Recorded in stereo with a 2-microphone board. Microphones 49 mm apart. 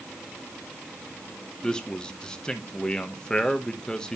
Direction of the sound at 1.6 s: 15° left (ahead or behind).